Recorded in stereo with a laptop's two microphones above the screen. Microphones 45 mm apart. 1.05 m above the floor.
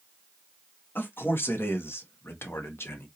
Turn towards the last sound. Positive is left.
turn(degrees=65)  # may be behind; listen again after turning